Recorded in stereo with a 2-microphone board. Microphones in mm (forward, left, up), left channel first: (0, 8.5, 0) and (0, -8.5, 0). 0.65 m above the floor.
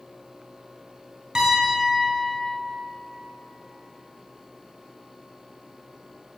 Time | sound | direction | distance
1.4 | a piano | 50° right (ahead or behind) | 3 m